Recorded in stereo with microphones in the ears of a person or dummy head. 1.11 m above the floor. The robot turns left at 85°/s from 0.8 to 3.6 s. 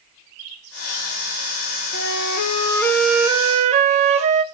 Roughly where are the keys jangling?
No keys jangling in this recording.